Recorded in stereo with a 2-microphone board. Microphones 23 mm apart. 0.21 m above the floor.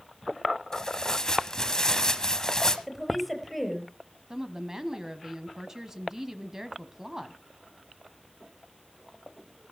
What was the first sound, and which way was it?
Tearing paper, 25° left (ahead or behind).